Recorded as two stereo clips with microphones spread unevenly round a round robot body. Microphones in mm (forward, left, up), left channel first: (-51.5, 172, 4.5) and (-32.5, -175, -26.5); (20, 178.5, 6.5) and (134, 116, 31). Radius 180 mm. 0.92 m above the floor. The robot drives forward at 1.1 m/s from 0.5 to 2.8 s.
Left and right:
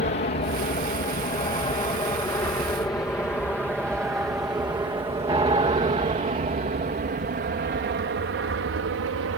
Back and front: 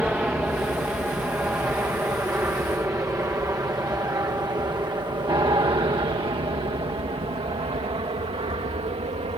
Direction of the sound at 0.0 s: 50° left.